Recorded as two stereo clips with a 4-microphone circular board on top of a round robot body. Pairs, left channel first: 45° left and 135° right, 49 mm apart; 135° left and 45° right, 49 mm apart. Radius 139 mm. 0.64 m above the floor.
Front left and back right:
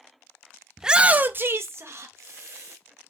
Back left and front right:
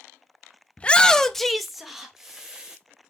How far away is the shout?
About 0.5 m.